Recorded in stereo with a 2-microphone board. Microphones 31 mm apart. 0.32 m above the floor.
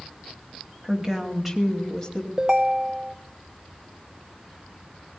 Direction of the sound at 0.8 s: 20° right (ahead or behind).